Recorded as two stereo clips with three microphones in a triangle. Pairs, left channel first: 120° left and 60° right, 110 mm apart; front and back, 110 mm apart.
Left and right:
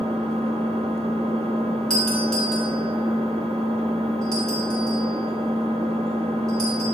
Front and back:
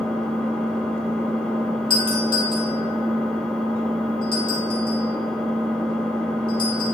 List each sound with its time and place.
0.0 s an engine running: 80° right, 1.0 m
1.9 s a doorbell: 35° left, 2.5 m